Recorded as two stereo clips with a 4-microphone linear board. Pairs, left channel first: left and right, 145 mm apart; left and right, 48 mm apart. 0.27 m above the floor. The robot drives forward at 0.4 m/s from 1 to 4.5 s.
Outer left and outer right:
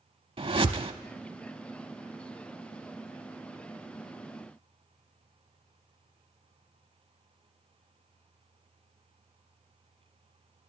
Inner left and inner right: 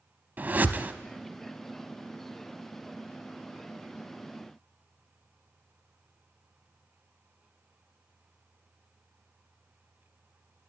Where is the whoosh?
40° right (ahead or behind), 0.7 m.